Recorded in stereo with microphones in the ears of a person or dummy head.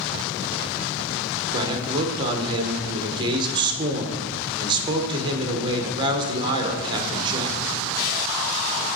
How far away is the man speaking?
About 1.2 m.